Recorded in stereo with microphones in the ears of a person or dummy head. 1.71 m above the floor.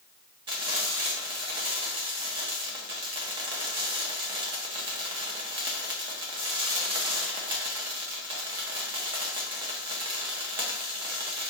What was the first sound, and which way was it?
Frying, 25° right (ahead or behind).